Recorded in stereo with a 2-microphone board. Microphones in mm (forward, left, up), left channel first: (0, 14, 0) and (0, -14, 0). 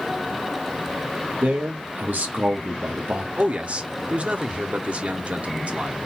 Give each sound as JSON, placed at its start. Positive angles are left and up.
{"t": 1.4, "sound": "a man speaking", "side_deg": -75, "distance_m": 1.1}
{"t": 3.4, "sound": "a man speaking", "side_deg": -50, "distance_m": 0.8}